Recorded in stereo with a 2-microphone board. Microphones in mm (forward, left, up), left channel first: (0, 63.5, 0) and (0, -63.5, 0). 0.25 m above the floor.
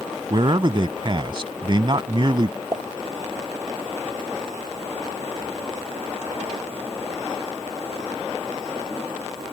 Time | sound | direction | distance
0.3 | a man speaking | 40° right (ahead or behind) | ?
2.7 | a pop | 30° right (ahead or behind) | ?